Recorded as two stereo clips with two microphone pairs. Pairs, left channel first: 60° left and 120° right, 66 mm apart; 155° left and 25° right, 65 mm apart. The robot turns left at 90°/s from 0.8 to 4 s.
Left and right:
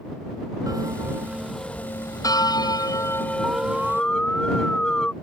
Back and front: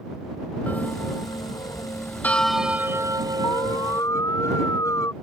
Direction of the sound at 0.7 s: 145° right.